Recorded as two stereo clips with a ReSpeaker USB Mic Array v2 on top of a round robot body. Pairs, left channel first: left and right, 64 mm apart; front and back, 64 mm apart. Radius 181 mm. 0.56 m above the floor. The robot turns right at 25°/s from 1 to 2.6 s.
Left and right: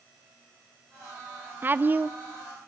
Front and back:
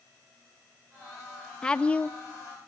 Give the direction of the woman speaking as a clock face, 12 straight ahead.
2 o'clock.